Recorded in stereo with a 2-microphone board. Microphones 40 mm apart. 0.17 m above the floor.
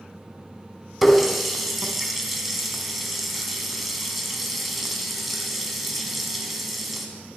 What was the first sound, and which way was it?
A running tap, 5° right (ahead or behind).